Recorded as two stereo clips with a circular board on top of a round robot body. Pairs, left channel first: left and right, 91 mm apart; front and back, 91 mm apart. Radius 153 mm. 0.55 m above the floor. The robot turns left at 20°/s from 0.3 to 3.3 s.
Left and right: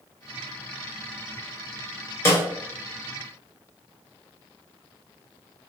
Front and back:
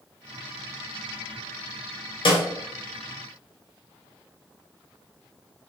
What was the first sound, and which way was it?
A snare drum, 30° left.